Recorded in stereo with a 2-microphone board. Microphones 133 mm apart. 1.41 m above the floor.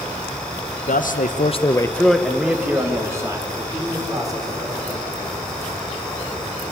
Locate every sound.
0.9 s a man speaking: 80° left, 1.3 m; by 5.3 s 30° right (ahead or behind), 6 m